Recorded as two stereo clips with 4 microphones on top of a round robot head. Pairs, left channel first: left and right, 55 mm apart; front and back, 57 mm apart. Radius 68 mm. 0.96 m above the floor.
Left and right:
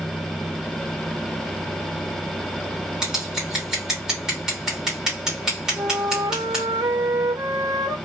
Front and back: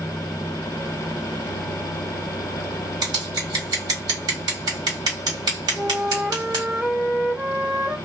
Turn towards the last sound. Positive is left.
turn(degrees=-105)